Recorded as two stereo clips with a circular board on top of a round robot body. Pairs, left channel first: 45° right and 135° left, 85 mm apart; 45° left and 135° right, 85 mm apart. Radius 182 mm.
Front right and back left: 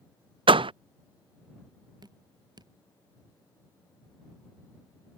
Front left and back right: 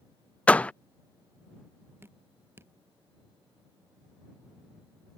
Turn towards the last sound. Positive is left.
turn(degrees=165)